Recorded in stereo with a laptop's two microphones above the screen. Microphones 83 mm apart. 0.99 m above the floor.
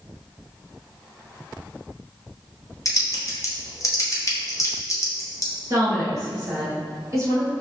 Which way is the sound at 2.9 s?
40° left (ahead or behind).